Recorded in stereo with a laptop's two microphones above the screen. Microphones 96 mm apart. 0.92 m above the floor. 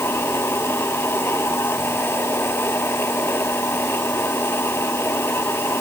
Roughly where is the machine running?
Left.